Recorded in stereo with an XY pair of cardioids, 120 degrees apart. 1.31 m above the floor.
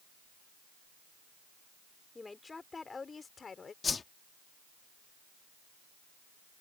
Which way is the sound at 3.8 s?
30° left.